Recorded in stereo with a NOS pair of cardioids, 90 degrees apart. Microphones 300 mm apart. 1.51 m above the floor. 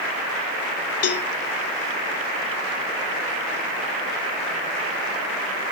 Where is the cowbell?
55° left, 0.8 m.